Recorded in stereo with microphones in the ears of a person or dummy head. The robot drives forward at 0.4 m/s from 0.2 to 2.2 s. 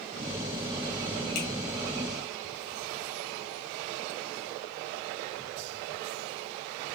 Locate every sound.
1.4 s a finger snap: 85° left, 2.0 m